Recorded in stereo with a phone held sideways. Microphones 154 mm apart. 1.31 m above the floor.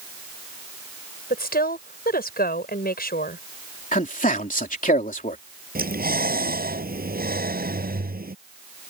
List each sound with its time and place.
1.3 s a woman speaking: 85° left
3.9 s a man speaking: 60° left (ahead or behind)
5.8 s breathing: 80° right